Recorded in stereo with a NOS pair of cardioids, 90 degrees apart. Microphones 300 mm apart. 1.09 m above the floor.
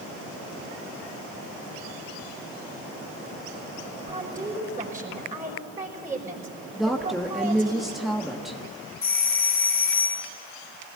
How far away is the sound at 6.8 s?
About 1.4 m.